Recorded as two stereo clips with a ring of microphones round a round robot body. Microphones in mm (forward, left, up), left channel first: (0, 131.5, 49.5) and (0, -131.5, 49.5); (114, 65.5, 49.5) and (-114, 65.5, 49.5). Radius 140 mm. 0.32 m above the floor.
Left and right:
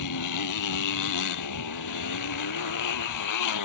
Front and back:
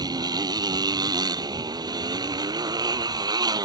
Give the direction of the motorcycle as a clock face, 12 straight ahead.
8 o'clock.